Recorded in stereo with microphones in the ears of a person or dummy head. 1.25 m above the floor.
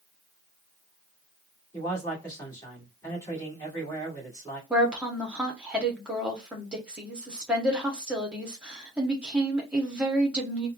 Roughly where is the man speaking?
Centre.